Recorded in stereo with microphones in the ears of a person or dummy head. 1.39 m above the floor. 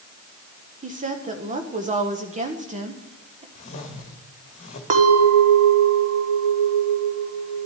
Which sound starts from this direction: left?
A whoosh, at 3.5 s.